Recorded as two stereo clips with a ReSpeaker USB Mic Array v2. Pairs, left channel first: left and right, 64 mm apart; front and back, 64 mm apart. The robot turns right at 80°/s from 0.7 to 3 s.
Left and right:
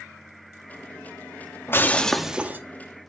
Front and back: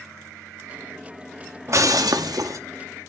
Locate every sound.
1.7 s breaking glass: 140° left, 1.0 m; by 2.6 s 145° right, 1.0 m